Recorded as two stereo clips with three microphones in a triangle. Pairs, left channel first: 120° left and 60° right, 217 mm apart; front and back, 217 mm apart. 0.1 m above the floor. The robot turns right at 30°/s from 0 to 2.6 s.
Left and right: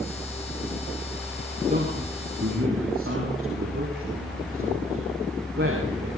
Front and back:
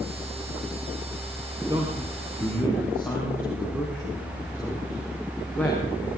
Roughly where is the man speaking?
Right.